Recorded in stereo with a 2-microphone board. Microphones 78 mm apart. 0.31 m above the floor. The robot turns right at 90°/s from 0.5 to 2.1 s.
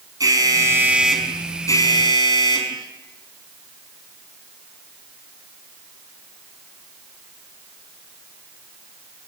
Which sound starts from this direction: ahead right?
An alarm, at 0.2 s.